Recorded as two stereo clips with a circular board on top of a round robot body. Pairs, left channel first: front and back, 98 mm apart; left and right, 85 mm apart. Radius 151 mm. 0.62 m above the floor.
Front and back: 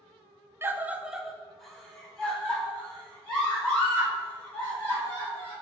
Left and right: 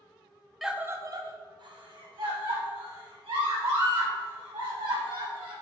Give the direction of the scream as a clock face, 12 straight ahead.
6 o'clock.